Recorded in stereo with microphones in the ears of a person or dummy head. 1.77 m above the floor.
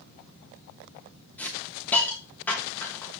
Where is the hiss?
10° left (ahead or behind), 2 m.